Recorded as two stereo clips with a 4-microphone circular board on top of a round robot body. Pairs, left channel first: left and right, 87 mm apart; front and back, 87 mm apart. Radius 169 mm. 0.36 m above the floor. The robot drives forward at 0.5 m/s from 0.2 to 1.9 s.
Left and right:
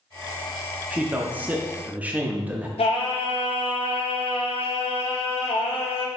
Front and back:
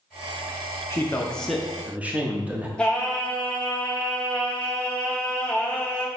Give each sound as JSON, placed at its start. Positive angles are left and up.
{"t": 0.9, "sound": "a man speaking", "azimuth_deg": -30, "distance_m": 0.8}
{"t": 2.8, "sound": "singing", "azimuth_deg": 80, "distance_m": 0.5}